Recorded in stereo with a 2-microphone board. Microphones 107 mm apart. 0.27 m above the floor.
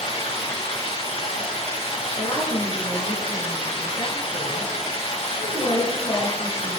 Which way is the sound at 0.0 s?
75° left (ahead or behind).